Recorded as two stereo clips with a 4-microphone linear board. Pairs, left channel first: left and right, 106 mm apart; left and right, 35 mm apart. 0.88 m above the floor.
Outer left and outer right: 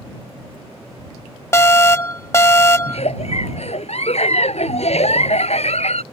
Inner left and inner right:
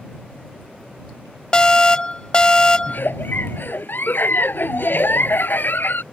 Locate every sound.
1.5 s an alarm: 25° left (ahead or behind)
2.9 s a giggle: 75° left (ahead or behind)